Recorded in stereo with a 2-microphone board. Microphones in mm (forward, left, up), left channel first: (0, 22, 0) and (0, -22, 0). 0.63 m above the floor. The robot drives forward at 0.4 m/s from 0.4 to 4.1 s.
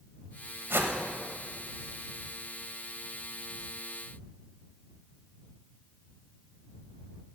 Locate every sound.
0.7 s a whoosh: 55° right (ahead or behind), 1.3 m